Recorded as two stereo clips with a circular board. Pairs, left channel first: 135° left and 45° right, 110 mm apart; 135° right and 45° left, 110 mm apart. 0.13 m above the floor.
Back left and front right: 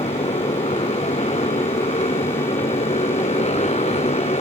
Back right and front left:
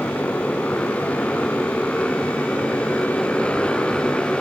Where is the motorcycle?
150° left; by 4.4 s 140° left.